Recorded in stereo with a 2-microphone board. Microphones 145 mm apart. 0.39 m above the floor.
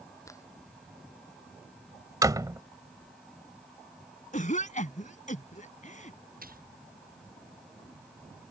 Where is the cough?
60° left (ahead or behind).